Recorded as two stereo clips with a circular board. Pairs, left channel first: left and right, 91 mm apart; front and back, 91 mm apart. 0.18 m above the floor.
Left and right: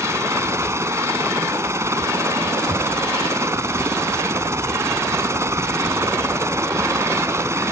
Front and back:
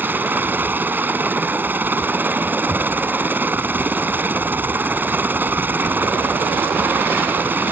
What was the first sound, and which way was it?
A helicopter, 125° right.